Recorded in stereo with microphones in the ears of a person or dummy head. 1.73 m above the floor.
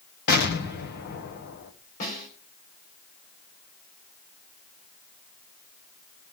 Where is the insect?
No insect in this recording.